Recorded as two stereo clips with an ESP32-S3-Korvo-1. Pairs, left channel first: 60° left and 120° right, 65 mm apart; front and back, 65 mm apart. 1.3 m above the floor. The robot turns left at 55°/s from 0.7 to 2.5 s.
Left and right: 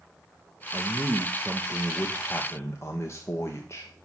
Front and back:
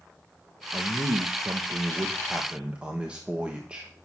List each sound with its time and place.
0.7 s a man speaking: 155° right, 1.0 m; by 3.9 s 110° left, 1.0 m